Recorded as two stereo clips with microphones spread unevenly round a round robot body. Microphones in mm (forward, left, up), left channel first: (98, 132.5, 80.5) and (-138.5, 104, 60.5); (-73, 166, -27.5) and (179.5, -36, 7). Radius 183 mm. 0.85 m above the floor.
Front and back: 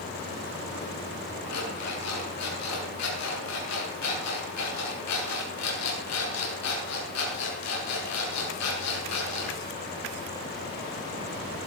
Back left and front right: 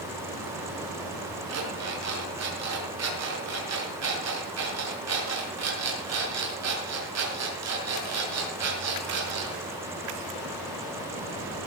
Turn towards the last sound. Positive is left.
turn(degrees=0)